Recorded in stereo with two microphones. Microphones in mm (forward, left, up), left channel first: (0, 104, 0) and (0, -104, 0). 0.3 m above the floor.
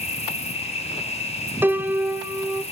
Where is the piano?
10° right (ahead or behind), 0.6 m.